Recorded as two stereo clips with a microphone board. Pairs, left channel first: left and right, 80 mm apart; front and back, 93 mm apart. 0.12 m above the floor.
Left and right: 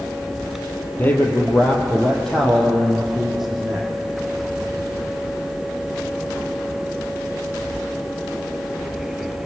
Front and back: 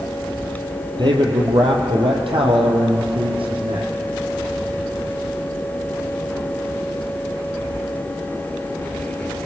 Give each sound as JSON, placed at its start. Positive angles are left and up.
{"t": 1.0, "sound": "a man speaking", "azimuth_deg": 155, "distance_m": 3.5}